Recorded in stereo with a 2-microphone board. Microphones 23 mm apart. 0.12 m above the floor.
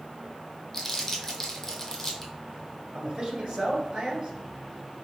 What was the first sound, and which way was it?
Crumpling, 25° left (ahead or behind).